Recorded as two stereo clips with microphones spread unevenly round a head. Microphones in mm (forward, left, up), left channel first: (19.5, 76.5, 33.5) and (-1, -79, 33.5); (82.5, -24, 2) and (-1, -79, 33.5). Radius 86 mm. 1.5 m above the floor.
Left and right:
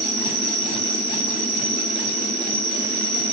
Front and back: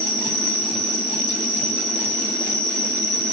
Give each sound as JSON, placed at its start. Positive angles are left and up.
{"t": 0.0, "sound": "an insect", "azimuth_deg": -85, "distance_m": 2.5}